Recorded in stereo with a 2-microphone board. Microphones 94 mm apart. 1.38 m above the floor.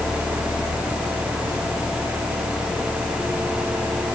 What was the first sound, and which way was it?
Only background noise.